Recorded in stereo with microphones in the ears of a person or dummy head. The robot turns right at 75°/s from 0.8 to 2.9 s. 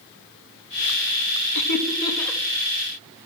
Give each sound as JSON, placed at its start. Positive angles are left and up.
{"t": 1.6, "sound": "laughter", "side_deg": 60, "distance_m": 1.5}